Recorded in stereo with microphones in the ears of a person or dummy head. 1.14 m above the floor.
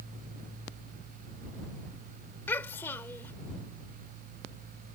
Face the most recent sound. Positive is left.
turn(degrees=15)  # may be behind; listen again after turning